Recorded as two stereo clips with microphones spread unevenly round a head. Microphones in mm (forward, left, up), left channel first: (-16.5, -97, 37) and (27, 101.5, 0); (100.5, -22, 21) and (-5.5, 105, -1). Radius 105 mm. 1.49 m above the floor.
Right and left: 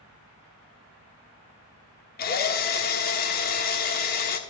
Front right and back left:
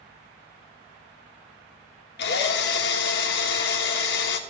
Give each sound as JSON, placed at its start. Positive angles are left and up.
{"t": 2.2, "sound": "a drill", "azimuth_deg": -65, "distance_m": 1.2}